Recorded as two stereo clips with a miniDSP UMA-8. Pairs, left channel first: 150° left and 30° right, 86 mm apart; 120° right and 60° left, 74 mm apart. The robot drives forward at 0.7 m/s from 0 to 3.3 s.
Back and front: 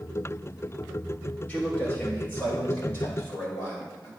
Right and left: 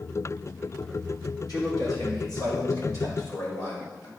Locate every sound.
1.5 s a man speaking: 140° right, 3.5 m; by 4.1 s 150° right, 4.5 m